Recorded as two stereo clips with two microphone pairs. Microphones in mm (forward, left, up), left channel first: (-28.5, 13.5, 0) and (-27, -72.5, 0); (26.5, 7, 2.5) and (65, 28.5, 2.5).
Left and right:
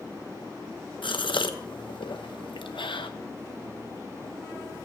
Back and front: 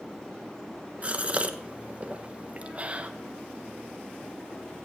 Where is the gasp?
85° left, 0.9 m.